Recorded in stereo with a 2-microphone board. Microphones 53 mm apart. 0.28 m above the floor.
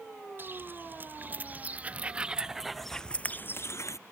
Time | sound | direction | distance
0.4 | footsteps | 40° right (ahead or behind) | ?